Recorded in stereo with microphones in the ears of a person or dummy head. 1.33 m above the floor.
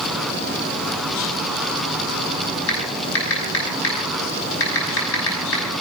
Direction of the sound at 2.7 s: 80° left.